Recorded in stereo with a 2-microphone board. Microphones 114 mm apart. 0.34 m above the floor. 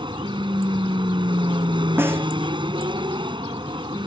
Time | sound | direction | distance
0.0 | an aircraft | 45° right (ahead or behind) | ?
2.0 | a snare drum | 20° right (ahead or behind) | ?